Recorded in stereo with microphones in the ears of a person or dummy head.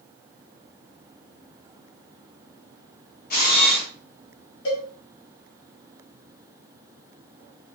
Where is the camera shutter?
45° left (ahead or behind), 1.0 m.